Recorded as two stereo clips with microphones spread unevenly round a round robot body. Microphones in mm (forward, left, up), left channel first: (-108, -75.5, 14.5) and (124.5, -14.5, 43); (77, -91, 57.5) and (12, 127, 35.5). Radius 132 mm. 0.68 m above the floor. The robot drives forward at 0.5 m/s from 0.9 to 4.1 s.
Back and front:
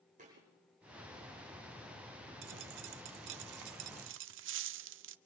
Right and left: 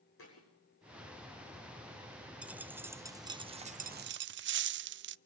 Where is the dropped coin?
20° left, 1.1 m; by 5.2 s 60° left, 0.5 m.